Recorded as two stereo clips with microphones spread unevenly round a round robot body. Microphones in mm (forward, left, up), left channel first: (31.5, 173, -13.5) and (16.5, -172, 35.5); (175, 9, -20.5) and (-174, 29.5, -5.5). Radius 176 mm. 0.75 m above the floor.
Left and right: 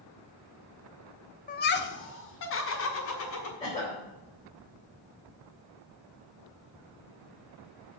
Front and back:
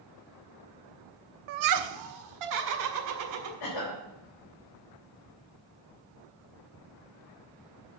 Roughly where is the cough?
Ahead.